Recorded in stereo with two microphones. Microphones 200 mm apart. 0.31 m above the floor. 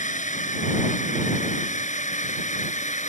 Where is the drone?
40° left (ahead or behind); by 3.1 s 35° left (ahead or behind).